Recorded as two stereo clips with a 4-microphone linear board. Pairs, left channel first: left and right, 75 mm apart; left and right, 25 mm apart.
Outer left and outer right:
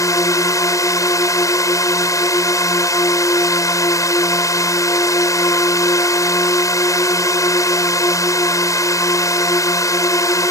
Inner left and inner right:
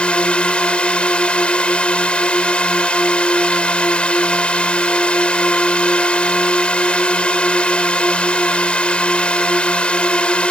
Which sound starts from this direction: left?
A drone, at 0.0 s.